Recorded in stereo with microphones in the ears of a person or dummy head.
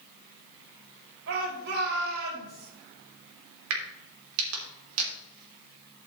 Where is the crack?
85° right, 3 m.